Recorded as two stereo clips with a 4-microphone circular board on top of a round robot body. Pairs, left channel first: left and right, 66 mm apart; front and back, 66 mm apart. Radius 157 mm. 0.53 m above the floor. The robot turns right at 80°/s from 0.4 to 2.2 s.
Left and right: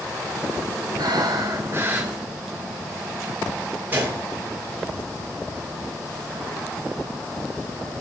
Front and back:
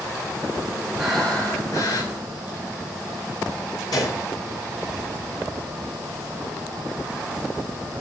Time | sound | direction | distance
1.0 | breathing | 100° right | 5.5 m
3.9 | a gunshot | 25° right | 7.5 m